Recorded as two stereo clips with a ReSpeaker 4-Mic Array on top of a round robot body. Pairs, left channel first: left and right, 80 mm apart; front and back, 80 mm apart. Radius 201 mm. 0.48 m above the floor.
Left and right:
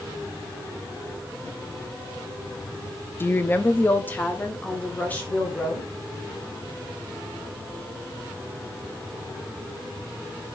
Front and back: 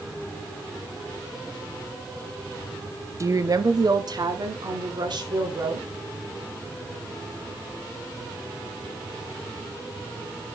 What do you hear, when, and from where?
3.2 s a woman speaking: 145° left, 0.8 m; by 5.9 s 160° left, 2.5 m